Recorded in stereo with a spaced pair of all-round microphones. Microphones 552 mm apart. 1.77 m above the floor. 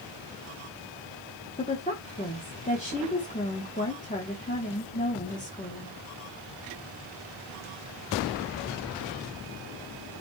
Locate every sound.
1.6 s a woman speaking: 15° left (ahead or behind), 2 m